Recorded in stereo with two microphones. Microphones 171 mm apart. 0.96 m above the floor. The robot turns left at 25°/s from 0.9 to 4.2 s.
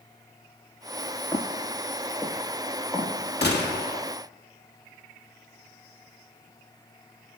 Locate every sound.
1.3 s footsteps: 20° left (ahead or behind), 1.0 m; by 3.1 s 15° right (ahead or behind), 1.7 m
3.4 s a gunshot: 75° left (ahead or behind), 1.5 m; by 4.0 s 60° left (ahead or behind), 1.5 m